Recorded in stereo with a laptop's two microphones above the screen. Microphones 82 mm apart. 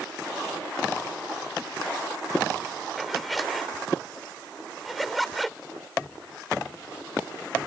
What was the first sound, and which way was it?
A zipper, centre (ahead or behind).